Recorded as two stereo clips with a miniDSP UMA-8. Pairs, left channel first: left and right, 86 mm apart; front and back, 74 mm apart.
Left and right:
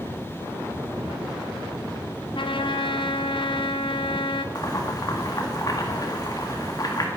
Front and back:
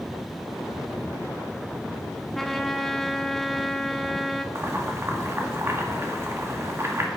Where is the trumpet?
90° left, 0.7 m.